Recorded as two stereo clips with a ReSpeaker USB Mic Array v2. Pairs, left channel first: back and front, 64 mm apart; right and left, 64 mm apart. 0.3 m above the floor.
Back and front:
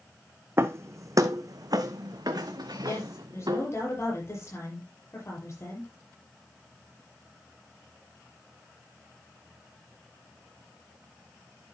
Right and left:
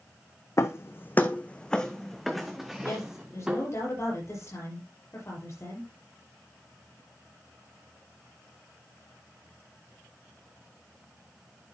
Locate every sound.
0.6 s footsteps: 50° right, 0.9 m; by 3.7 s 15° left, 1.8 m
2.8 s a woman speaking: 130° right, 6.5 m